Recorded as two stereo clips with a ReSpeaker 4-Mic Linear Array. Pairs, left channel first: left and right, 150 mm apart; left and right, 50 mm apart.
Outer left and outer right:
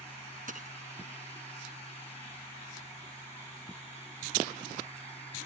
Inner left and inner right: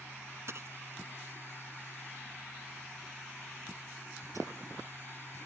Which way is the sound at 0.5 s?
65° right (ahead or behind).